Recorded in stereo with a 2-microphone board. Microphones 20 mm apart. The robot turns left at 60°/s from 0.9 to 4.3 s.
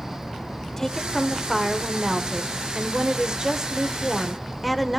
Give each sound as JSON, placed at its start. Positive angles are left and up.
{"t": 0.8, "sound": "a woman speaking", "azimuth_deg": 20, "distance_m": 1.3}